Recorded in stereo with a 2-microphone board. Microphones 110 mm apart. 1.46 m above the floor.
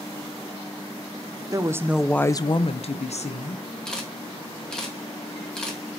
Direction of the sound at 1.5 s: 35° right (ahead or behind).